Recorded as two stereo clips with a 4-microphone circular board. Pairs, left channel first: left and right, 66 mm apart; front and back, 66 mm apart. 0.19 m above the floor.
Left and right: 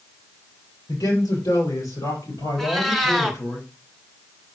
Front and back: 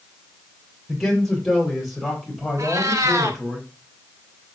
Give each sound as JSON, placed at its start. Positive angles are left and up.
{"t": 0.9, "sound": "a man speaking", "azimuth_deg": 80, "distance_m": 5.5}
{"t": 2.6, "sound": "a cat meowing", "azimuth_deg": 175, "distance_m": 1.2}